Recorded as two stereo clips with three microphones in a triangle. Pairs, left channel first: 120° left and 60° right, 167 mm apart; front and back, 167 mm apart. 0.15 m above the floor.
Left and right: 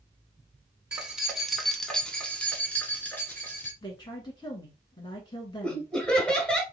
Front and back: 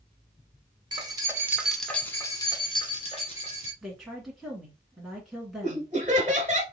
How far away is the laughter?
About 1.3 m.